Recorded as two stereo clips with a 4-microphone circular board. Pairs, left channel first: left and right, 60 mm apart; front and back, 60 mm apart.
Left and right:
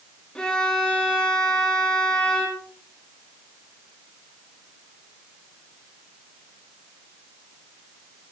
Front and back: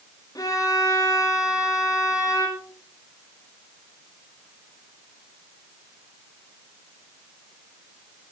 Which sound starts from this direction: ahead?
A violin, at 0.3 s.